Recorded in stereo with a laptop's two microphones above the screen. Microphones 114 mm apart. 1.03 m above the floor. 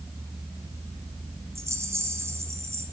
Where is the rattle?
25° right (ahead or behind), 3 m.